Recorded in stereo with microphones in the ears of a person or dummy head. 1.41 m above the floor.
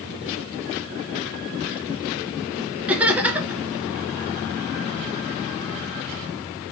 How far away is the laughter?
About 1.4 m.